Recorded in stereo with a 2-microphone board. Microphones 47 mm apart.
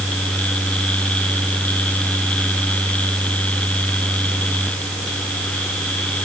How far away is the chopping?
No chopping in this recording.